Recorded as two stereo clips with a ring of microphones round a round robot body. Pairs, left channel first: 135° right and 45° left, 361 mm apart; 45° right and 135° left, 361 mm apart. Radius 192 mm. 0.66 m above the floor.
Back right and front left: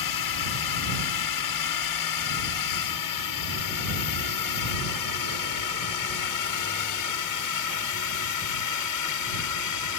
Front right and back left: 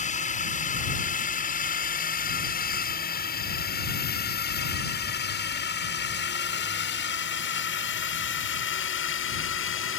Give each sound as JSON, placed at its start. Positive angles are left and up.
{"t": 0.0, "sound": "a drone", "azimuth_deg": -115}